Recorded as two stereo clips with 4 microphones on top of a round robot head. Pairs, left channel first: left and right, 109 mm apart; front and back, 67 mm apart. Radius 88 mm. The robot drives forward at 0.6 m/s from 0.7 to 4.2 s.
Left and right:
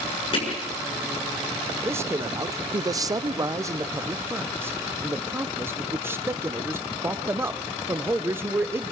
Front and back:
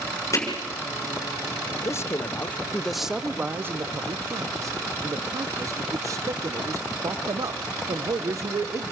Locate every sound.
0.3 s hammering: 40° left, 6.5 m
1.8 s a man speaking: 25° right, 1.0 m; by 8.9 s 155° right, 1.0 m